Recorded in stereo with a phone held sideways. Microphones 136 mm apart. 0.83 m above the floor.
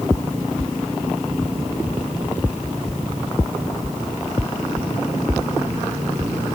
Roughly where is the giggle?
I don't hear a giggle.